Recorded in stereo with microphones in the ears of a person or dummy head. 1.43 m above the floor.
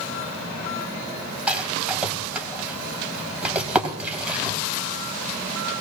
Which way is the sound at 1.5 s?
10° right (ahead or behind).